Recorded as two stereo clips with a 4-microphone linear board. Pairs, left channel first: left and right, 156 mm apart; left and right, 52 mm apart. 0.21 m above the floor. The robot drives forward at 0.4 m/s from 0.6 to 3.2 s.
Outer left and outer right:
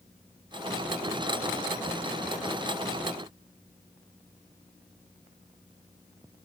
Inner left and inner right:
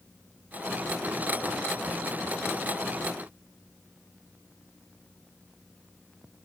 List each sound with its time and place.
Only background noise.